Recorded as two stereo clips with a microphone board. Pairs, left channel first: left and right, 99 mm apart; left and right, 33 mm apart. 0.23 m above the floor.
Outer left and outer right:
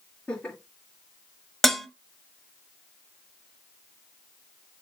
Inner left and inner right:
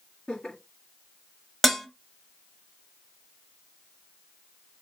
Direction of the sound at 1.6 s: Centre (ahead or behind).